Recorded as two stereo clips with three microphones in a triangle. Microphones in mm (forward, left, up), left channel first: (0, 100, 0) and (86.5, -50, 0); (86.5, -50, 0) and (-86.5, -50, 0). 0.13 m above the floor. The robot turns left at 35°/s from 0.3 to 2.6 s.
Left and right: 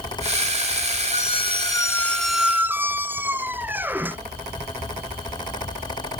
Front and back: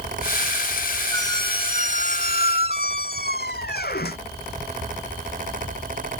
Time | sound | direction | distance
1.1 | a squeak | 70° left | ?